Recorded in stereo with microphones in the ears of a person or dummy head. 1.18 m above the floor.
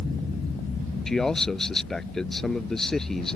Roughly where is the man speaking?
Centre.